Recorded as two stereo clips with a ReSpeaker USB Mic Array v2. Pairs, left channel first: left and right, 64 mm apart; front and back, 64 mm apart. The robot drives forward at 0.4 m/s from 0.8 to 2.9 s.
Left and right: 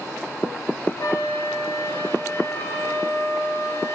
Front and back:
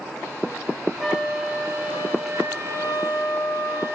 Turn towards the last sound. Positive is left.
turn(degrees=130)